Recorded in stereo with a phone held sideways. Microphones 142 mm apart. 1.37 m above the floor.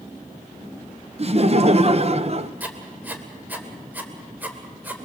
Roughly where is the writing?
Centre.